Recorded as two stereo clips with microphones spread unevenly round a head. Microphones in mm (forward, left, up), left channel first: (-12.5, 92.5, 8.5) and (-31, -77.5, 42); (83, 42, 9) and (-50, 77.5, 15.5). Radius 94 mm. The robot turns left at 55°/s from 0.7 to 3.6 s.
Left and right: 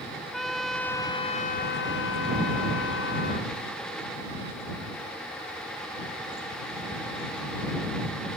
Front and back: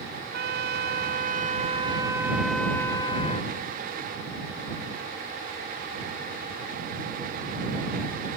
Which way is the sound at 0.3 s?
175° left.